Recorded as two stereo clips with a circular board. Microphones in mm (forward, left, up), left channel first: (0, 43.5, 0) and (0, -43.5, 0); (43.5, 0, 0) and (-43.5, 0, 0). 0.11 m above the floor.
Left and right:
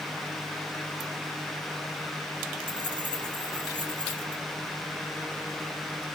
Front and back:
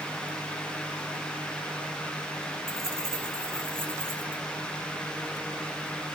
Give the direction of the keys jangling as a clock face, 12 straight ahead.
4 o'clock.